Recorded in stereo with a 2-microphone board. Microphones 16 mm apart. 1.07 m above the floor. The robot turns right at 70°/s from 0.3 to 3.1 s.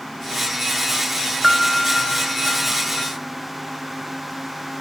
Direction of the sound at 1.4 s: 10° right.